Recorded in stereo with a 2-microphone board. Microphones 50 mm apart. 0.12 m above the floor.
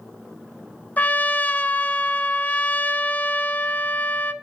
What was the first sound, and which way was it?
A trumpet, 35° left (ahead or behind).